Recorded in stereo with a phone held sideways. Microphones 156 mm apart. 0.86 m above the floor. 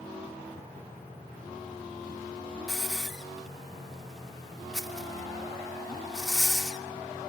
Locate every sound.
2.7 s a hiss: centre (ahead or behind), 2.5 m